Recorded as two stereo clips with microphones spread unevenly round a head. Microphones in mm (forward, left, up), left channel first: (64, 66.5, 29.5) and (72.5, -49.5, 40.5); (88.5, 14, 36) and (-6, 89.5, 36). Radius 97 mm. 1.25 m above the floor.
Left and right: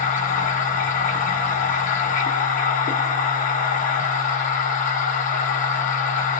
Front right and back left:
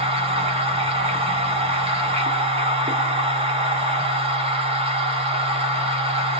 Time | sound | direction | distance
0.0 | a machine running | 100° left | 0.9 m